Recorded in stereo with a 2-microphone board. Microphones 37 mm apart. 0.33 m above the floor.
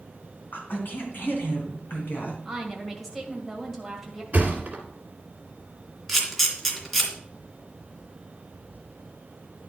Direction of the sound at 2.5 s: Centre (ahead or behind).